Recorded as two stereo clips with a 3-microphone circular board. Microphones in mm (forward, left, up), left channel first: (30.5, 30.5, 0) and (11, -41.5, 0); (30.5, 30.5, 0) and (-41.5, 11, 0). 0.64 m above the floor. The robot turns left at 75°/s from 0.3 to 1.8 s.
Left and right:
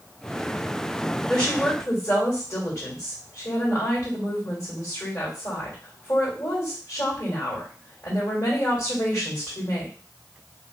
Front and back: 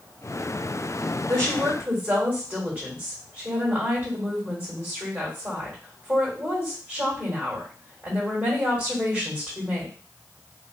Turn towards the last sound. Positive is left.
turn(degrees=125)